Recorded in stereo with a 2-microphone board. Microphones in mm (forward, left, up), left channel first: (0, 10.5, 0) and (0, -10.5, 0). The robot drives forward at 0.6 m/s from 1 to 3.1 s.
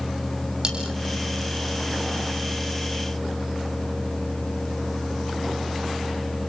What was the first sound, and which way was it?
Cutlery clinking, 40° right (ahead or behind).